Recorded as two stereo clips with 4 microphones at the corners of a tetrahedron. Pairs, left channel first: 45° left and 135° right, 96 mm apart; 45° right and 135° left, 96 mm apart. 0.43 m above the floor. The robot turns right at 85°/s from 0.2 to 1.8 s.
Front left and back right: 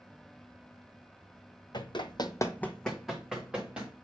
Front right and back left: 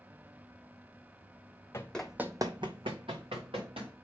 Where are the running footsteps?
15° left, 1.0 m; by 3.9 s 145° left, 2.5 m.